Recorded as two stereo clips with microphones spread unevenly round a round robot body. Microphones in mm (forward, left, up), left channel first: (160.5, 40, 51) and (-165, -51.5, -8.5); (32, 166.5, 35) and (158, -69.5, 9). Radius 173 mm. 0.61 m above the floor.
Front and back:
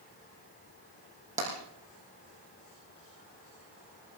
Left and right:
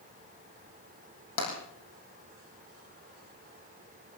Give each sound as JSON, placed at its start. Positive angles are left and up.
{"t": 1.4, "sound": "tapping", "azimuth_deg": 125, "distance_m": 7.0}